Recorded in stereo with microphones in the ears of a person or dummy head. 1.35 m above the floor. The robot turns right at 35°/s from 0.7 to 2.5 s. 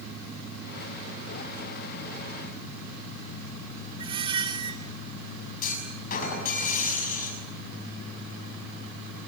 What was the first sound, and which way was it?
A squeak, 25° right (ahead or behind).